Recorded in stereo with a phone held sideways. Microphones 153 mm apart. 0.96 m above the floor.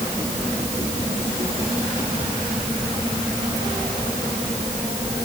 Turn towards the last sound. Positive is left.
No sound to turn to.